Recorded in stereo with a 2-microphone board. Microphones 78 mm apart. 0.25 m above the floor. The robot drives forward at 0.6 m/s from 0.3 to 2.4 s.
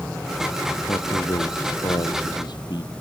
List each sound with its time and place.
0.9 s a man speaking: 75° left (ahead or behind); by 2.9 s 70° left (ahead or behind)